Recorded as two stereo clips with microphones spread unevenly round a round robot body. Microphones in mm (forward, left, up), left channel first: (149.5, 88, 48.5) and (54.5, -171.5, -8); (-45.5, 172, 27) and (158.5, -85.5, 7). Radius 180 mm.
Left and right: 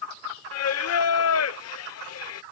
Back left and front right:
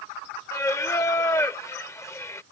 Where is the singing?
45° left.